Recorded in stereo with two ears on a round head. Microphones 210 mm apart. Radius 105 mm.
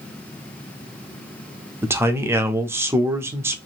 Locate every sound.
1.8 s a man speaking: 10° right (ahead or behind), 0.5 m